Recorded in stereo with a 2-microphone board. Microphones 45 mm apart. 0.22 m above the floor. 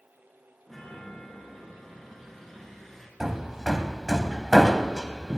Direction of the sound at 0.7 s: 10° left (ahead or behind).